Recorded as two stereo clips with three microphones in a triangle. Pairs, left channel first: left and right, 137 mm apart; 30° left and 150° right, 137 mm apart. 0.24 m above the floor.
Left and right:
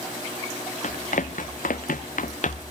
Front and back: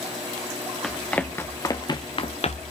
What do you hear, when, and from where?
0.8 s running footsteps: 115° left, 1.9 m; by 2.6 s 65° left, 1.5 m